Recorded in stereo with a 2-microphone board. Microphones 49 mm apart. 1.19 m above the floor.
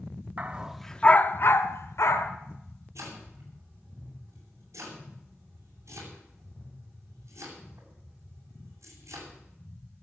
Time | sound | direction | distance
0.4 | a dog barking | 30° right (ahead or behind) | 0.9 m
3.0 | chopping | 75° right (ahead or behind) | 8 m